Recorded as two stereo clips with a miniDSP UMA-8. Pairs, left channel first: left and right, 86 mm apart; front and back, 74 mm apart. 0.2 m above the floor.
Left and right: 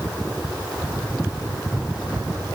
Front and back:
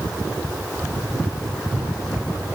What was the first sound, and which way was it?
Only background noise.